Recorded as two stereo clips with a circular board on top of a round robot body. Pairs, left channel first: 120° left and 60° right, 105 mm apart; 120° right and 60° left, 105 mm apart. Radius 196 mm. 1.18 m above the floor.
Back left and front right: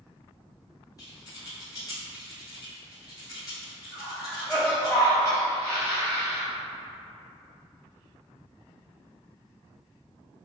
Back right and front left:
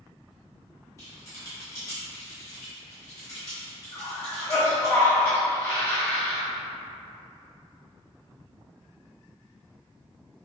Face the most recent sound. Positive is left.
turn(degrees=180)